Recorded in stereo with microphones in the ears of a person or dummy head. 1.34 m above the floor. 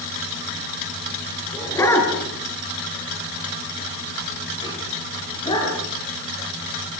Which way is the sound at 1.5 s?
15° left (ahead or behind).